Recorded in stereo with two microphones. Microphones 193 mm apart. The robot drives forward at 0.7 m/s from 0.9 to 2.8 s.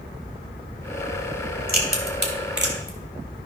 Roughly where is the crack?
Right.